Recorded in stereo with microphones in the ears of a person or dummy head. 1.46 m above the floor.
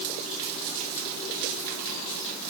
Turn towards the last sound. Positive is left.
No sound to turn to.